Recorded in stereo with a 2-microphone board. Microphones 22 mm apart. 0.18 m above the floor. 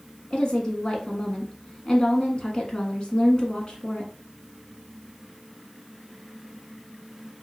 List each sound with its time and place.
0.3 s a woman speaking: 35° left (ahead or behind), 1.4 m